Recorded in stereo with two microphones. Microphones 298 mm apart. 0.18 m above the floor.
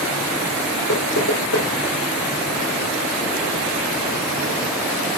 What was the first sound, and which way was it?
Knocking, 80° left.